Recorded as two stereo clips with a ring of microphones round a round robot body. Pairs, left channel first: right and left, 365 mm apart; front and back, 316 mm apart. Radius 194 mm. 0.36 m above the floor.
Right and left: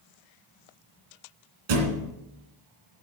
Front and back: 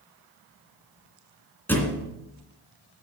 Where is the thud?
85° left, 2.5 m.